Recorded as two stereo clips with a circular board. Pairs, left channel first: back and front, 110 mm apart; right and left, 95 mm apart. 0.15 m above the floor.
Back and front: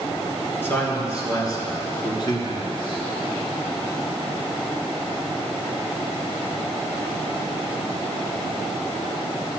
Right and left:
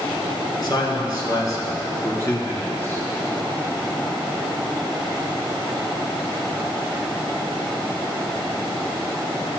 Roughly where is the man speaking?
Behind right.